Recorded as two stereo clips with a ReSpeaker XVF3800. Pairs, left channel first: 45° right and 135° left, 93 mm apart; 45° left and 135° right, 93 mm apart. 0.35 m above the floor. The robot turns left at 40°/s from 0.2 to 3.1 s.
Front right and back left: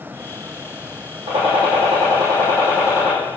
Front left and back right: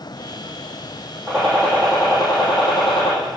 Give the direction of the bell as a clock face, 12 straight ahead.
No bell in this recording.